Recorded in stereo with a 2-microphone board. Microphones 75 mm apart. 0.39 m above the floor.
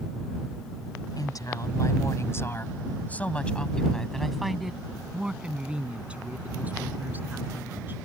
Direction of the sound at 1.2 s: 60° left (ahead or behind).